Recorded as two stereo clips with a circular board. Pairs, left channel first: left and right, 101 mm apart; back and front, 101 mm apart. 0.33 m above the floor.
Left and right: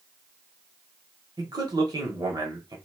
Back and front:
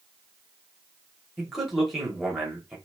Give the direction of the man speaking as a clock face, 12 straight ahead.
3 o'clock.